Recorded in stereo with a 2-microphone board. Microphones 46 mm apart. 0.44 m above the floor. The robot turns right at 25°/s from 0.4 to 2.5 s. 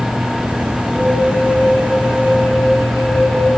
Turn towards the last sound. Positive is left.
turn(degrees=60)